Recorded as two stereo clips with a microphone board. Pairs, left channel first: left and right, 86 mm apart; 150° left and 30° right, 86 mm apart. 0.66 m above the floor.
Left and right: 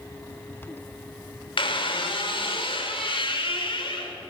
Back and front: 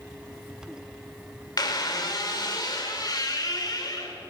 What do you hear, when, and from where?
1.6 s a squeak: 105° left, 1.5 m